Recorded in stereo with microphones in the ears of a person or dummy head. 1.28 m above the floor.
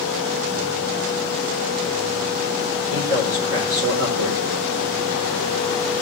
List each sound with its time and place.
2.9 s a man speaking: 85° right, 3.5 m